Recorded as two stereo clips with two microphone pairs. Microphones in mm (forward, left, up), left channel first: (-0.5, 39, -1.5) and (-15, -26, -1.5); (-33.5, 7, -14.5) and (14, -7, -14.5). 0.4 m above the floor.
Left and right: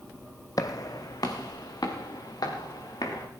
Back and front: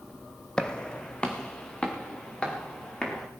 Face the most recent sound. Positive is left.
turn(degrees=95)